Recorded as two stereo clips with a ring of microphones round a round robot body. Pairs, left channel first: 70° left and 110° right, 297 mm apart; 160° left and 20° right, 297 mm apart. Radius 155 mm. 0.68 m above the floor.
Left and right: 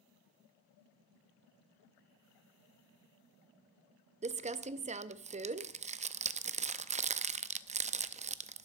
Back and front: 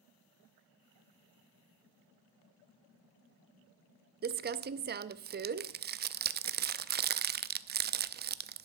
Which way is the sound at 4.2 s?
60° right.